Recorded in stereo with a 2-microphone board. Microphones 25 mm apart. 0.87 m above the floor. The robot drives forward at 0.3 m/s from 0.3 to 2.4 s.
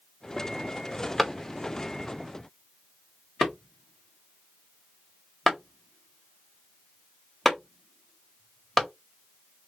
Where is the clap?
Centre (ahead or behind), 1.1 m.